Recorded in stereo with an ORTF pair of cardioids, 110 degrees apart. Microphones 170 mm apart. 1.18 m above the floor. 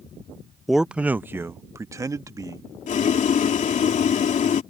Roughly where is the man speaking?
Ahead.